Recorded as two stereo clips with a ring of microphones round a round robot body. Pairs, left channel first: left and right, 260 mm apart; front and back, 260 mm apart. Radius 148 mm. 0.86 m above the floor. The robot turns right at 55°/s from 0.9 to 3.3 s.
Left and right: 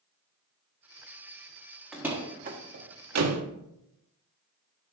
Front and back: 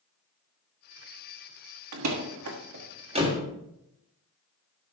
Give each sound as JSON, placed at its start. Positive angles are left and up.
{"t": 1.9, "sound": "a door slam", "azimuth_deg": 180, "distance_m": 1.4}